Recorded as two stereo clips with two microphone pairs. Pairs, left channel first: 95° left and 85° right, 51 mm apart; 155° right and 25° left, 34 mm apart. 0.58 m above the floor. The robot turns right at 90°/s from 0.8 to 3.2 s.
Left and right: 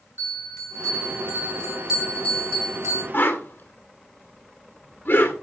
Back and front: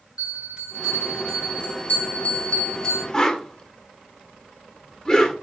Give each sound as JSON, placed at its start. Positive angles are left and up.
{"t": 0.2, "sound": "a bell", "azimuth_deg": 95, "distance_m": 5.0}
{"t": 3.1, "sound": "a whoosh", "azimuth_deg": 130, "distance_m": 1.8}